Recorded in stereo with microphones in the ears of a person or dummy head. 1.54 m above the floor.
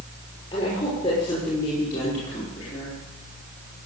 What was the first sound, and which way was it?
A woman speaking, 35° left (ahead or behind).